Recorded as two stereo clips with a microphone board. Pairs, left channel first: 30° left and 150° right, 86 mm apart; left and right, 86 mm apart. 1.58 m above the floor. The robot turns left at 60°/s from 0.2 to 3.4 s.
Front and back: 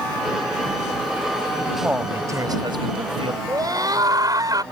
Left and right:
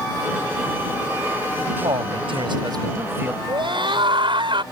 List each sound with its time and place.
1.8 s a man speaking: 70° right; by 3.4 s 165° right
3.5 s a scream: 110° right